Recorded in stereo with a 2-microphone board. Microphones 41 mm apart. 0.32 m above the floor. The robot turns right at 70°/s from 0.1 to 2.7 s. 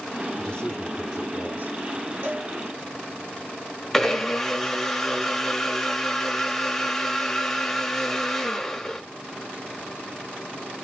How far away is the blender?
About 0.8 m.